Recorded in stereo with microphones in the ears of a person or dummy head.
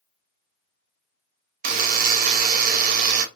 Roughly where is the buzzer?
Right.